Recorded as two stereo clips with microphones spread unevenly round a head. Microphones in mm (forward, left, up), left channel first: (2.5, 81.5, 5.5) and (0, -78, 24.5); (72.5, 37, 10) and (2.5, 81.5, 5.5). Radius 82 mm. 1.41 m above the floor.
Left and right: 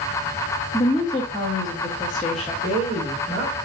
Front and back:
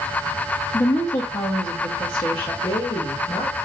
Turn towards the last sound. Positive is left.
turn(degrees=-45)